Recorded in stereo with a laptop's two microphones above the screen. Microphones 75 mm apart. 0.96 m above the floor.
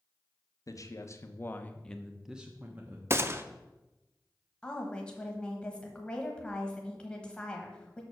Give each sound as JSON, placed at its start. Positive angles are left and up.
{"t": 0.7, "sound": "a man speaking", "side_deg": 50, "distance_m": 0.9}
{"t": 3.1, "sound": "a gunshot", "side_deg": -35, "distance_m": 0.6}
{"t": 4.6, "sound": "a woman speaking", "side_deg": 10, "distance_m": 1.1}